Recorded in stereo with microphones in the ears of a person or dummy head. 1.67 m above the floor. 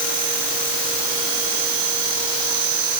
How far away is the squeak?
No squeak in this recording.